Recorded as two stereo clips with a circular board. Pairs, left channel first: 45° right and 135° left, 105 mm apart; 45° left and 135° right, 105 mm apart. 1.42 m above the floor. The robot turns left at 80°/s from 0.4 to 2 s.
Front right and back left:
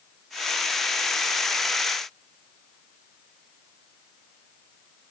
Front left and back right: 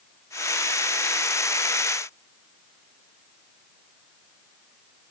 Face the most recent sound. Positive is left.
No sound to turn to.